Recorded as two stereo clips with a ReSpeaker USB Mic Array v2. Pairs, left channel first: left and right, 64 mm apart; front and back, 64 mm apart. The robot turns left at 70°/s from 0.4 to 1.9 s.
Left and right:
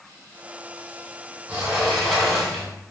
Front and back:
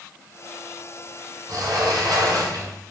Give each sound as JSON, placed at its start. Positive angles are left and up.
{"t": 1.5, "sound": "a sliding door", "azimuth_deg": -160, "distance_m": 1.7}